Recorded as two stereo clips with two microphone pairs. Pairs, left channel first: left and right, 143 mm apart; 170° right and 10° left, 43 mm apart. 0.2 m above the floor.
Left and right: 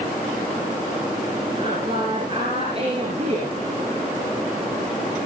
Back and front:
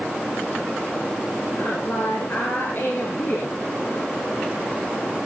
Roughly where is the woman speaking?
Behind right.